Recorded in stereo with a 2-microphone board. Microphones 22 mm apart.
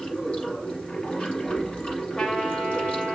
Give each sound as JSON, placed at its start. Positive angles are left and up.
{"t": 0.0, "sound": "running water", "side_deg": 80, "distance_m": 4.5}
{"t": 2.2, "sound": "a trumpet", "side_deg": 60, "distance_m": 3.5}